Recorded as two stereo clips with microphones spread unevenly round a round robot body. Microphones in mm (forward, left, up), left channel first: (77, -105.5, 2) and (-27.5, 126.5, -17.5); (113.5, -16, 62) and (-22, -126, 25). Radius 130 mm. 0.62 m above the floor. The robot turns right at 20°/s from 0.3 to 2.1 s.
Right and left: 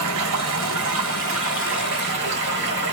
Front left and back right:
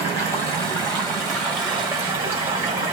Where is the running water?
120° left, 1.2 m; by 2.9 s 155° left, 1.2 m.